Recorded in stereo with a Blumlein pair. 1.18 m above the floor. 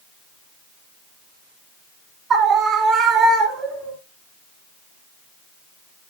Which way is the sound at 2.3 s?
25° right.